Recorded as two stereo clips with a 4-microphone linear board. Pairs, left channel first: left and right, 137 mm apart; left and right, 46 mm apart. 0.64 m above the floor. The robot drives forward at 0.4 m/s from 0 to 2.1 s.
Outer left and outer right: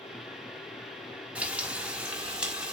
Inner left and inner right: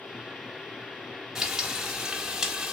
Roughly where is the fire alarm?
I don't hear a fire alarm.